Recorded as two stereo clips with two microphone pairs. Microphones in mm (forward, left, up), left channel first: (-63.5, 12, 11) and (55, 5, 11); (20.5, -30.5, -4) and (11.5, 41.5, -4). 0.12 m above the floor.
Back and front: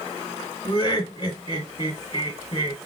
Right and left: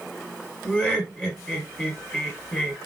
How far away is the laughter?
About 1.5 m.